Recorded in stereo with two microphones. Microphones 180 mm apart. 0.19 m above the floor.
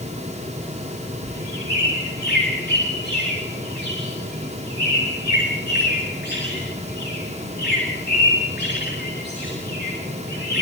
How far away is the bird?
About 7 m.